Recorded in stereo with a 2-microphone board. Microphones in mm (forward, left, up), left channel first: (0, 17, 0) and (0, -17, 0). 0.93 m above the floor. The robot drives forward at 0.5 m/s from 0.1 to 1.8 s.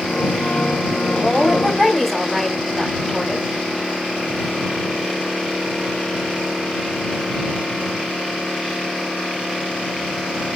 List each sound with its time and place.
1.1 s a woman speaking: 5° left (ahead or behind), 5 m